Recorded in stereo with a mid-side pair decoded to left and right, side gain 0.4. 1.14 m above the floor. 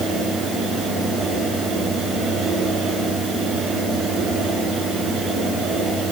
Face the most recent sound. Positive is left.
turn(degrees=-60)